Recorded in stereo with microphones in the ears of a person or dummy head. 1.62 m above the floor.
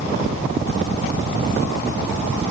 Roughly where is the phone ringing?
No phone ringing in this recording.